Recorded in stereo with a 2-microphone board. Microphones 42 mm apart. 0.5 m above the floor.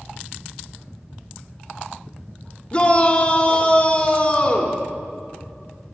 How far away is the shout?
About 1.3 m.